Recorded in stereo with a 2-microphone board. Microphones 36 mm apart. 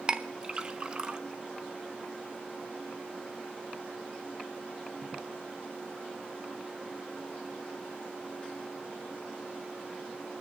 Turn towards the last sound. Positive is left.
turn(degrees=-25)  # may be behind; listen again after turning